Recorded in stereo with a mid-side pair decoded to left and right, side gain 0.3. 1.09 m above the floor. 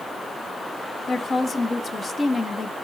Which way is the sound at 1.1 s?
55° left.